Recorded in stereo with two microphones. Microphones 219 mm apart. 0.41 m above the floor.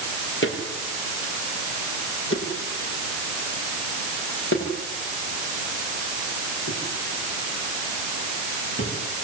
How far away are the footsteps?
About 6 m.